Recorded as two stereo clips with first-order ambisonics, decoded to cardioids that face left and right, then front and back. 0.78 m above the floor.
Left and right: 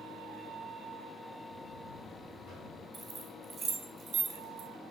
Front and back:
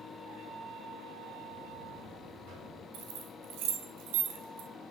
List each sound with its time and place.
1.5 s a buzzer: 150° left, 3.5 m
2.9 s keys jangling: 170° right, 1.7 m